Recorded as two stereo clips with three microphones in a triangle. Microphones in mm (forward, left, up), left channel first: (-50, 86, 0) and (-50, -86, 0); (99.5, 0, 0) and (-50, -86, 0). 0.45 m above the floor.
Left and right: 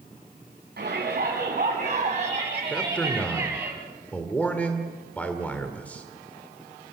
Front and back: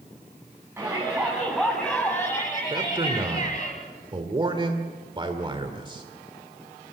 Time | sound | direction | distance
0.8 | a shout | 75° right | 3.5 m
2.7 | a man speaking | 170° left | 1.7 m